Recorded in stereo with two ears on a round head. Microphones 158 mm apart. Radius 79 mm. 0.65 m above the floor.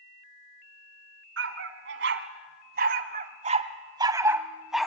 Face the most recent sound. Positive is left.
turn(degrees=0)  # may be behind; listen again after turning